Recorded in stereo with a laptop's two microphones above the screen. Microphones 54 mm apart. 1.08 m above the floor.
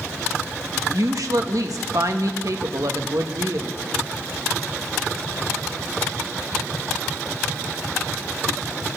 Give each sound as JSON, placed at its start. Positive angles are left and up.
{"t": 0.9, "sound": "a woman speaking", "side_deg": -75, "distance_m": 1.3}